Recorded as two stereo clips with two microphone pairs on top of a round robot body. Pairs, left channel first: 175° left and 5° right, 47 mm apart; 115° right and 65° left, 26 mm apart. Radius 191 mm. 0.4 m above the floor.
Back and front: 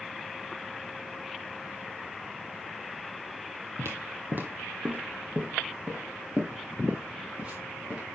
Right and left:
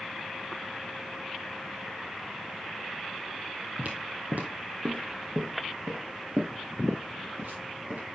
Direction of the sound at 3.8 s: 30° left.